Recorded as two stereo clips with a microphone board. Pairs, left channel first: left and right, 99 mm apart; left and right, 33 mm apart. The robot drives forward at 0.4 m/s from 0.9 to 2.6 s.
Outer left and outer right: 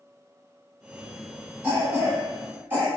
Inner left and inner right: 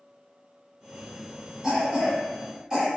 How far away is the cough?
About 1.4 m.